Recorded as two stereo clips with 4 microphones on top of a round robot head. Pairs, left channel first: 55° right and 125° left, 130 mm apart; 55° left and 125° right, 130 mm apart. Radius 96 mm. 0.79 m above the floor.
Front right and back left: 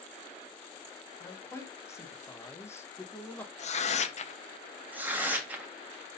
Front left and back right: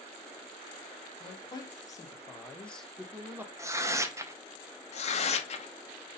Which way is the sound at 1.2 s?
10° left.